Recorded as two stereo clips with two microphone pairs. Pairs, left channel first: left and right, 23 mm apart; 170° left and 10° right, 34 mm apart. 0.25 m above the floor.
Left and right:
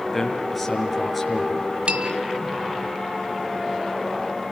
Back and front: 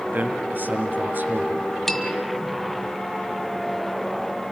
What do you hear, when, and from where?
0.1 s a man speaking: straight ahead, 5 m
1.9 s a bell: 110° right, 2 m